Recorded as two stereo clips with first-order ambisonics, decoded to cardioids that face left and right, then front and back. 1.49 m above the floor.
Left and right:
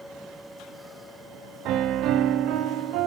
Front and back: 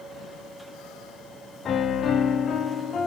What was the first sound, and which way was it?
A piano, 60° right.